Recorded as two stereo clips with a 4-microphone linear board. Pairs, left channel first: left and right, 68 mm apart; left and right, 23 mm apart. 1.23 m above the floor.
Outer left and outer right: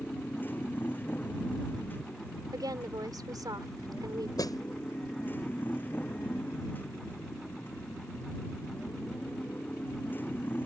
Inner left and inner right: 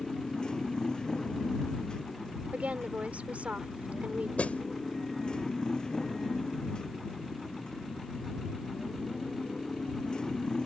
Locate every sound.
0.0 s a motorcycle: 30° left (ahead or behind)
2.5 s a woman speaking: 85° right
4.4 s a snare drum: 75° left (ahead or behind)